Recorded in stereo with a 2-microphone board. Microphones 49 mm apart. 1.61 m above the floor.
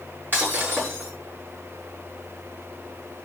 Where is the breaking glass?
45° right (ahead or behind), 7.5 m.